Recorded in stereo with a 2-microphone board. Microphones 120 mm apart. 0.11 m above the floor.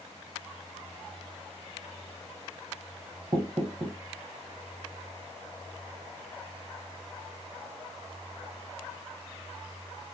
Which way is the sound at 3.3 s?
50° right (ahead or behind).